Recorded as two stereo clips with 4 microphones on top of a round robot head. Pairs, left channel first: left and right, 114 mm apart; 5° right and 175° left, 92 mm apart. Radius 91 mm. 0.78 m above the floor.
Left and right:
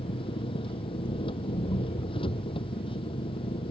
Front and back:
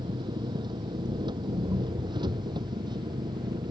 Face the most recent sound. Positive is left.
turn(degrees=135)